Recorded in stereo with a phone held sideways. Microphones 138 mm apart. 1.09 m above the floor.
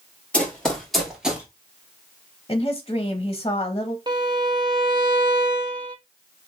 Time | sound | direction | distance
0.3 | running footsteps | 10° left (ahead or behind) | 1.6 m
2.5 | a woman speaking | 30° left (ahead or behind) | 0.7 m
4.1 | a violin | 35° right (ahead or behind) | 0.8 m